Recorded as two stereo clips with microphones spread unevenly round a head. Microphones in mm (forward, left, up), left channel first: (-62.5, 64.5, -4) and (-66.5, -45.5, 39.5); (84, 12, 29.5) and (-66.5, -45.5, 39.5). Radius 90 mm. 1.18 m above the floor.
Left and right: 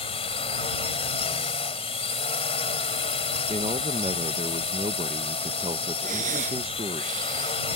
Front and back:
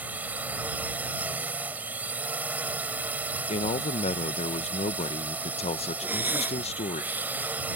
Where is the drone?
120° left.